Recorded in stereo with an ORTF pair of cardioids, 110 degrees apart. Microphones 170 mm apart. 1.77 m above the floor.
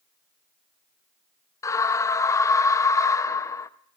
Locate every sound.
1.6 s a scream: 15° left, 0.6 m